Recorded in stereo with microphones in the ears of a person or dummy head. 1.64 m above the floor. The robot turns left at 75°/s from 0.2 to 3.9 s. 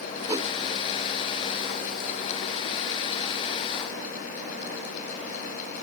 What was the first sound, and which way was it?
A whoosh, 10° right (ahead or behind).